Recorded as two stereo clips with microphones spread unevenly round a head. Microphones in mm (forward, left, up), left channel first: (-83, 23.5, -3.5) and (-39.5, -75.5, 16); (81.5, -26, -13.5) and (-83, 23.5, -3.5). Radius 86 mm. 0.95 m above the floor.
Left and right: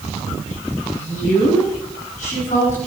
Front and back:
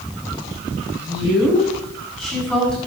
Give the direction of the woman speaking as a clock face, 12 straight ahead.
9 o'clock.